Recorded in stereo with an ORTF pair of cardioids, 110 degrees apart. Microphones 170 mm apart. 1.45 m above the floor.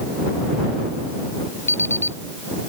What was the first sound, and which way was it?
An alarm clock, 15° left.